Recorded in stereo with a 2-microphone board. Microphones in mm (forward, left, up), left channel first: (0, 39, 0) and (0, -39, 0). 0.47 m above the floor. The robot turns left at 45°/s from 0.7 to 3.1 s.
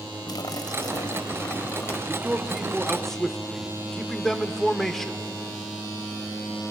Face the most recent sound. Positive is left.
turn(degrees=170)